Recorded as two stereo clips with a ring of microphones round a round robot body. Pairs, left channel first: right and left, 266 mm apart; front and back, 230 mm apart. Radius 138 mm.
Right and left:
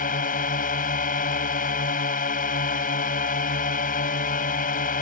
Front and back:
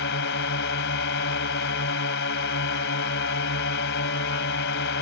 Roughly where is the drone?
Ahead right.